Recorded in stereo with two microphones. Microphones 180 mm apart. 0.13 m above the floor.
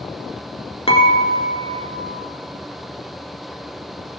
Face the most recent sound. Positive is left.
turn(degrees=35)  # may be behind; listen again after turning